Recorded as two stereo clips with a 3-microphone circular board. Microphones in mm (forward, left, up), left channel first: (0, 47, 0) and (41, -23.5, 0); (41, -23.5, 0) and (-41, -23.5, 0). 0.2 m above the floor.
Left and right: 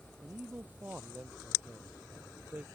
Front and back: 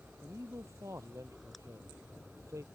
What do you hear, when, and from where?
0.2 s a man speaking: 130° right